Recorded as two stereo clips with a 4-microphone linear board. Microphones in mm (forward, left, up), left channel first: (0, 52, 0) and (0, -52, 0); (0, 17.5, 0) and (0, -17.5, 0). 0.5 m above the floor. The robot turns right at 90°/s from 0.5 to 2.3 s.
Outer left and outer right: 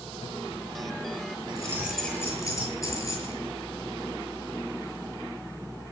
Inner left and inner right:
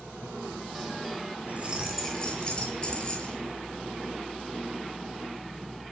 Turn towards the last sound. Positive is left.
turn(degrees=30)